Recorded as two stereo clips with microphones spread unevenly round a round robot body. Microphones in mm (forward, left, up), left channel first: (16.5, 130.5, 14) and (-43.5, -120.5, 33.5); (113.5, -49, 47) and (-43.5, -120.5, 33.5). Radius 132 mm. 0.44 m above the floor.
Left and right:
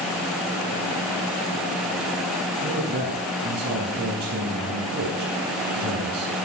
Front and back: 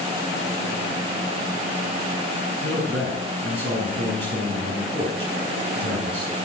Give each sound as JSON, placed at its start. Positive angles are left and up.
{"t": 2.6, "sound": "a man speaking", "azimuth_deg": -155, "distance_m": 4.0}